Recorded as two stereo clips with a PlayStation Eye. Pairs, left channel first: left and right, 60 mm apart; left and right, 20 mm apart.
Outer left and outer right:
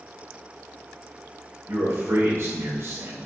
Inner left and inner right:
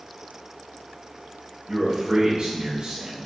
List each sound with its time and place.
1.7 s a man speaking: 55° right (ahead or behind), 2.5 m